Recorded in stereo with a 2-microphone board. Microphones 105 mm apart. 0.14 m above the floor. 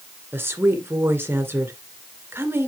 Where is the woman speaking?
20° right (ahead or behind), 2.0 m.